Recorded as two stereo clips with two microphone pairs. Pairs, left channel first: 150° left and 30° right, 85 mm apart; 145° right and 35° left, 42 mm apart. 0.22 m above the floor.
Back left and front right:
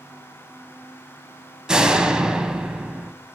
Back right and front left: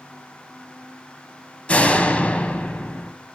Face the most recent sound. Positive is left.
turn(degrees=-105)